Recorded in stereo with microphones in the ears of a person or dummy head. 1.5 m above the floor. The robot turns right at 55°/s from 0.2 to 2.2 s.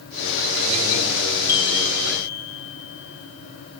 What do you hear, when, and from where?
1.5 s a chime: 15° left (ahead or behind), 1.0 m; by 3.8 s 50° left (ahead or behind), 1.0 m